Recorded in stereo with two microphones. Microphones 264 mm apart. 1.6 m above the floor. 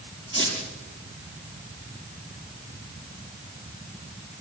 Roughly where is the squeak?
Left.